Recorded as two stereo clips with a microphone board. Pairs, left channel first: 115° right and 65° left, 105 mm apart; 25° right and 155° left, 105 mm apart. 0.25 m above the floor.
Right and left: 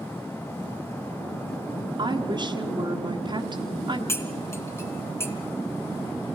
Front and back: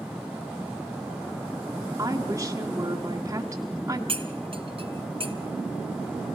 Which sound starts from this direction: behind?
Cutlery clinking, at 4.1 s.